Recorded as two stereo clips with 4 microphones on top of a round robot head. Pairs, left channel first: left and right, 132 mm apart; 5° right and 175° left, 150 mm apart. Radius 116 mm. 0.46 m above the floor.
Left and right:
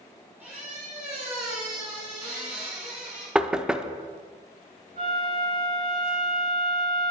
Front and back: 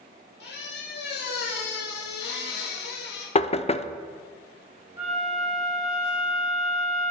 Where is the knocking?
10° right, 0.7 m.